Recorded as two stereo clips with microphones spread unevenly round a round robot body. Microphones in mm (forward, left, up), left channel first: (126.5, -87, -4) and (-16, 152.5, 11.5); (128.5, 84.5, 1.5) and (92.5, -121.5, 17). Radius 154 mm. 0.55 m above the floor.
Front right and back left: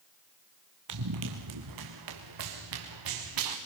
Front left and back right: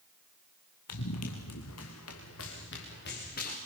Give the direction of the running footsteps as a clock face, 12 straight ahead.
8 o'clock.